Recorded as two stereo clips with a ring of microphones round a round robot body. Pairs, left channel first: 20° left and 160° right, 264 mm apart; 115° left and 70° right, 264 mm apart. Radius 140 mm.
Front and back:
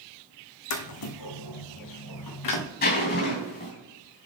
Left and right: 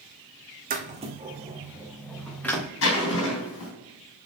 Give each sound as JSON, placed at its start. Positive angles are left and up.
{"t": 0.7, "sound": "footsteps", "azimuth_deg": -10, "distance_m": 1.2}
{"t": 2.8, "sound": "a zipper", "azimuth_deg": 75, "distance_m": 3.0}